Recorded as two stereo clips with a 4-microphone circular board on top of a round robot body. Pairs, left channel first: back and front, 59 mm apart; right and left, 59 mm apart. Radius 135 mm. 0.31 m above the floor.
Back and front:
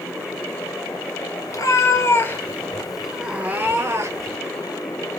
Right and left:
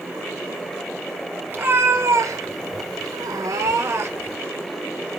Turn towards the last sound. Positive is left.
turn(degrees=40)